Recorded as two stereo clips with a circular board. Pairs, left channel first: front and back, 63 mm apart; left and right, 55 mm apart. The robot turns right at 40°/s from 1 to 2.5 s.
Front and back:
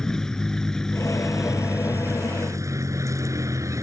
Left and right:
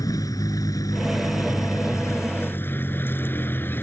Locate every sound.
0.0 s a vehicle: 85° left; by 3.8 s 145° left